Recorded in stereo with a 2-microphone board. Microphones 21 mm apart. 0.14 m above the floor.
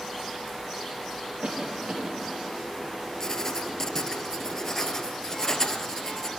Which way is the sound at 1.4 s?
50° right (ahead or behind).